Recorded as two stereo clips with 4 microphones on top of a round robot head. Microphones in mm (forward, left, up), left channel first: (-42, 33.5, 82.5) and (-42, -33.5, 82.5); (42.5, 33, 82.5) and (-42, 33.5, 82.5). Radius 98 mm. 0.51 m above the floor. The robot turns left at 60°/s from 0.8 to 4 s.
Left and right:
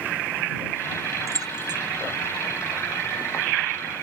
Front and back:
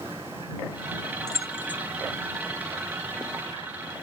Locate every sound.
1.3 s keys jangling: 50° right; by 1.8 s 80° right